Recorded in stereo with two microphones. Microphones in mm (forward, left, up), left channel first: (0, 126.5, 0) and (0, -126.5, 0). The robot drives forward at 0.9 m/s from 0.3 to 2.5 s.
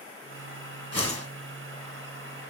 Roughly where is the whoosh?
Right.